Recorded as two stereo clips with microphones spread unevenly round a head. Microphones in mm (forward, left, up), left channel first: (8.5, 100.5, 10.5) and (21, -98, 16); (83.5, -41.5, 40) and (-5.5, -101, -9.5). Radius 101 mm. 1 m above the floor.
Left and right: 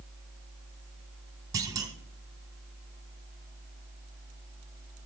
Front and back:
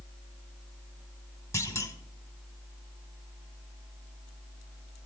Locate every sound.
1.5 s a clunk: 15° right, 1.8 m